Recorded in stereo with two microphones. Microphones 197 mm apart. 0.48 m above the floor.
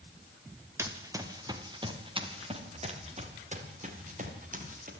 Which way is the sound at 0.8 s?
15° right (ahead or behind).